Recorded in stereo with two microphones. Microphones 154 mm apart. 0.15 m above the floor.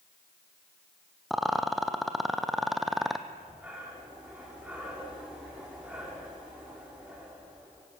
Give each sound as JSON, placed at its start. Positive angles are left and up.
{"t": 1.3, "sound": "a rattle", "side_deg": 0, "distance_m": 1.5}
{"t": 3.3, "sound": "breathing", "side_deg": -10, "distance_m": 7.5}